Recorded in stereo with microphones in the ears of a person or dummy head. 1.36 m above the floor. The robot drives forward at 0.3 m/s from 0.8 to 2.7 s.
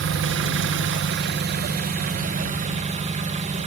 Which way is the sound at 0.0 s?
65° right (ahead or behind).